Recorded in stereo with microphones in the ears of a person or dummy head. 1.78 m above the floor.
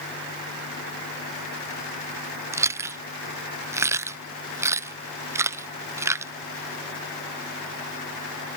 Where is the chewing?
15° right (ahead or behind).